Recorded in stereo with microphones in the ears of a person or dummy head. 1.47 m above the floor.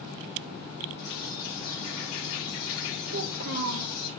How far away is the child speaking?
About 0.8 m.